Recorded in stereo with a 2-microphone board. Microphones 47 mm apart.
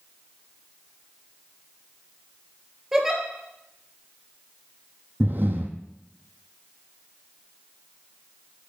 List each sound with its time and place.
2.9 s a giggle: 10° right (ahead or behind), 1.9 m
5.2 s breathing: 55° right (ahead or behind), 0.8 m